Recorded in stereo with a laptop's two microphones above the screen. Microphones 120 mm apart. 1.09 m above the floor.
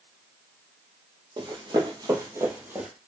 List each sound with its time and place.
1.4 s running footsteps: 40° right (ahead or behind), 1.5 m; by 2.9 s 15° right (ahead or behind), 1.4 m